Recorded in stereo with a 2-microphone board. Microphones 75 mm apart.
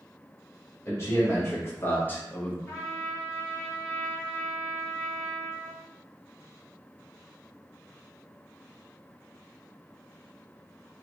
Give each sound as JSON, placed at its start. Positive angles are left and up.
{"t": 0.8, "sound": "a man speaking", "side_deg": 40, "distance_m": 1.8}
{"t": 2.7, "sound": "a trumpet", "side_deg": 35, "distance_m": 1.0}